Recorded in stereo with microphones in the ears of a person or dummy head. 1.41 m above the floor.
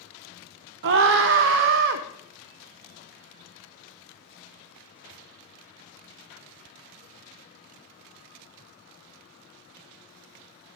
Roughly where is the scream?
Right.